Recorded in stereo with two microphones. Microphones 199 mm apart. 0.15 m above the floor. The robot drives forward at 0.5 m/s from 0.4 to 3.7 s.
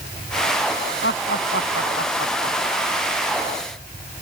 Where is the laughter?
80° left; by 3.1 s 75° left (ahead or behind).